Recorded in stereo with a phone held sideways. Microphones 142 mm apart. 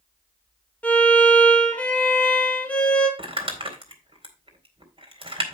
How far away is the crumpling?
About 2 m.